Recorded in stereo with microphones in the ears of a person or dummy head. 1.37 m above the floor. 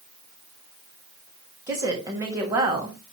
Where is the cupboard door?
I don't hear a cupboard door.